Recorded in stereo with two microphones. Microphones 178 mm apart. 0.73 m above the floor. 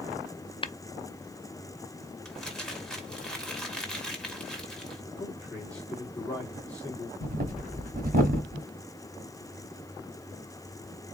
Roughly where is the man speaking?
Centre.